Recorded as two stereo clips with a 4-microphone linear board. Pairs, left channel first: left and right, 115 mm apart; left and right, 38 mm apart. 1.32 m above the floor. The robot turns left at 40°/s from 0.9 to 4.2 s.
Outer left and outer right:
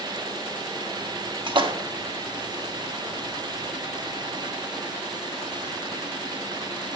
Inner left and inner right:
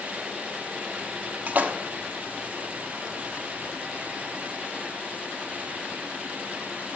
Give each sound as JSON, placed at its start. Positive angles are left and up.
{"t": 1.5, "sound": "a splash", "side_deg": -45, "distance_m": 0.9}